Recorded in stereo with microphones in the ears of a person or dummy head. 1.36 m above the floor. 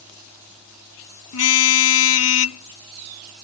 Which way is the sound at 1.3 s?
85° left.